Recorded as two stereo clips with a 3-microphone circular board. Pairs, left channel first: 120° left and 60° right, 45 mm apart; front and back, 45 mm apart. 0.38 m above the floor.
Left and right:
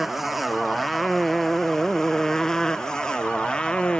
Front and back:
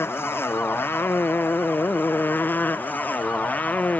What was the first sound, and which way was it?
A motorcycle, 25° left.